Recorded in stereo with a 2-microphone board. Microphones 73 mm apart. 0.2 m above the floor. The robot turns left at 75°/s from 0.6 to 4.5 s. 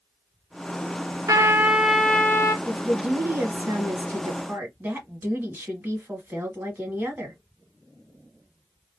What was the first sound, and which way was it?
A trumpet, 130° right.